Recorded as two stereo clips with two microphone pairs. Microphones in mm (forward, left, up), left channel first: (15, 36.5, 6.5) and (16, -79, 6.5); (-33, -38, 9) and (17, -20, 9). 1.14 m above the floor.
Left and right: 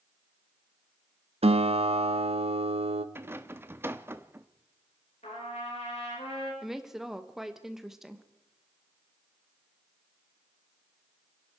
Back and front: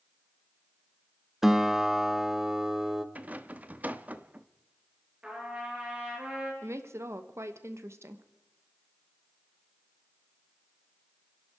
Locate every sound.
1.4 s a guitar: 65° right, 0.8 m
3.1 s a rattle: 30° right, 0.7 m
5.2 s a trumpet: 85° left, 5 m
6.6 s a woman speaking: 5° right, 1.2 m